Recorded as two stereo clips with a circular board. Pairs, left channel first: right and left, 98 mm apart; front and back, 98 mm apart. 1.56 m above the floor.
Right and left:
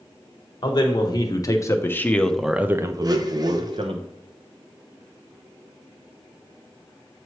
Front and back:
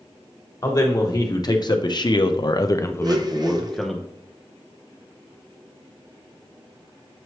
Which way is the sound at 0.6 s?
50° right.